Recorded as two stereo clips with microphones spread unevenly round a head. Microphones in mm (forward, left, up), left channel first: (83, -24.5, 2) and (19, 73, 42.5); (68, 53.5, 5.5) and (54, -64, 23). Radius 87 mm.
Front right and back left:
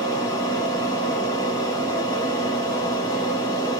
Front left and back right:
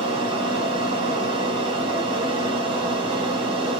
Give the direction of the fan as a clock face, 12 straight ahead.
2 o'clock.